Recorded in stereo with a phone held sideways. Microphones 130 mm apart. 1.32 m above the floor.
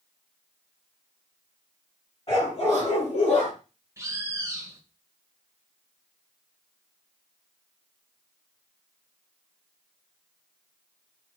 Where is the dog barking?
50° left (ahead or behind), 4.5 m; by 3.5 s 65° left (ahead or behind), 4 m.